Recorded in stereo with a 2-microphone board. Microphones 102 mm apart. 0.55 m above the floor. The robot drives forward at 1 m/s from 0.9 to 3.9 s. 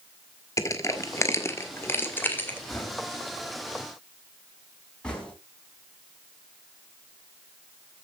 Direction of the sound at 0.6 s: 30° left (ahead or behind).